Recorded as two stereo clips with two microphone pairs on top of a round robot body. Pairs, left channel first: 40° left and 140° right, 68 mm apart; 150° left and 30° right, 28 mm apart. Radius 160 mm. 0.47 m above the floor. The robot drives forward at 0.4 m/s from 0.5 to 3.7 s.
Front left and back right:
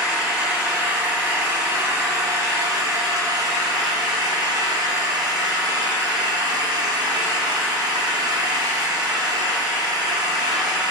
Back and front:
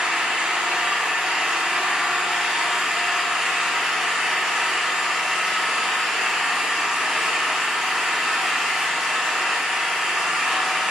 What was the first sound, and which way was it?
An engine running, 70° right.